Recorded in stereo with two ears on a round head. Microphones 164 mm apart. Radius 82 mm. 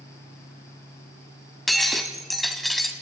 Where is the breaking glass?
Centre (ahead or behind), 2 m.